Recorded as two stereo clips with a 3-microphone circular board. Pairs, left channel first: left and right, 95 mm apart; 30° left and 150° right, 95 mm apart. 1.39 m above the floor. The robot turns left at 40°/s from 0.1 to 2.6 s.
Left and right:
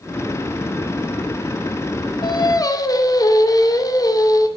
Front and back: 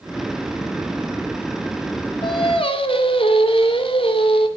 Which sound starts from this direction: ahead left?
Singing, at 2.2 s.